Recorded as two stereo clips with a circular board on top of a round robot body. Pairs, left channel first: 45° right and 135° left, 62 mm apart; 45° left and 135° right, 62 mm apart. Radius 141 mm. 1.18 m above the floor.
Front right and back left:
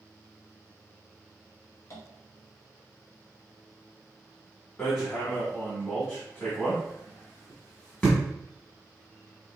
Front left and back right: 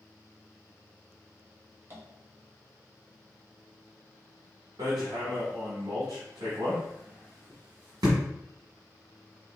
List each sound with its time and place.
1.9 s tapping: 85° right, 1.4 m
4.8 s hammering: 125° right, 1.4 m